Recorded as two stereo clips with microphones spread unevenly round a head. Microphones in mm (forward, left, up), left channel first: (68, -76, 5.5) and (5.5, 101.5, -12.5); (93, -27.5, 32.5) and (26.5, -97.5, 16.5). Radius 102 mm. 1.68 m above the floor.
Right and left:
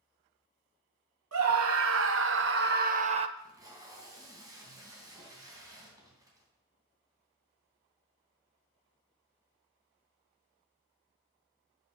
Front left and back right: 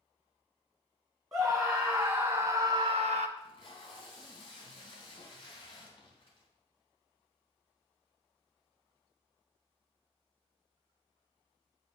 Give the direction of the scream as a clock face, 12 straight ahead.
8 o'clock.